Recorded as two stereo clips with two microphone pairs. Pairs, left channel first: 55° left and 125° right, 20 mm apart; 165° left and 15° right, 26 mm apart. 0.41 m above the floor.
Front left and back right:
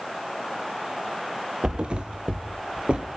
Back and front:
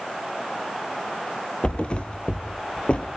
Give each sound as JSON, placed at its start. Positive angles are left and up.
{"t": 1.6, "sound": "a thud", "azimuth_deg": -155, "distance_m": 1.6}